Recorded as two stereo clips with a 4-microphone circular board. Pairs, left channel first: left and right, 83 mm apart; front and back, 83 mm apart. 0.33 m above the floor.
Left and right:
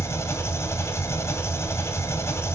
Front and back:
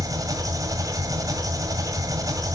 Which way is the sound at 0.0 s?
145° left.